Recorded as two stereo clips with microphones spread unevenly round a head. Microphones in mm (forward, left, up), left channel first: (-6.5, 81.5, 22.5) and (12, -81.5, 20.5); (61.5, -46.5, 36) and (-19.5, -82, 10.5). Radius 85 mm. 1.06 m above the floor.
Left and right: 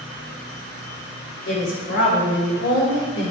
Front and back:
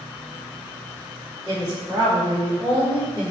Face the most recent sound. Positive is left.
turn(degrees=95)